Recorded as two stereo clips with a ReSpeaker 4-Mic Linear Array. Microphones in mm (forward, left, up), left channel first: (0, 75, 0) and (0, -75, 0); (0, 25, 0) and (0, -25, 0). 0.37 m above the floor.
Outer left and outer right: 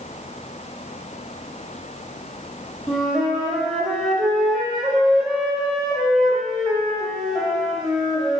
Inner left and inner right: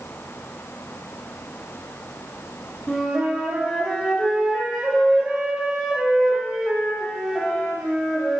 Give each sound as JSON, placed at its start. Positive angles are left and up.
{"t": 2.9, "sound": "a flute", "side_deg": 0, "distance_m": 0.7}